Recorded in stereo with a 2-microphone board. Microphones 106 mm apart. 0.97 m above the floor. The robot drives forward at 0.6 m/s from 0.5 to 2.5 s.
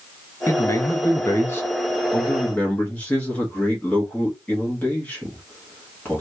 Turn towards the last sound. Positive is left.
turn(degrees=15)  # may be behind; listen again after turning